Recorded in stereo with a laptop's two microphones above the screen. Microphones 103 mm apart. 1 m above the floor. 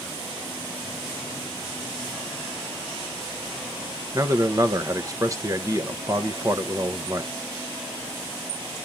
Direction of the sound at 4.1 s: 30° right (ahead or behind).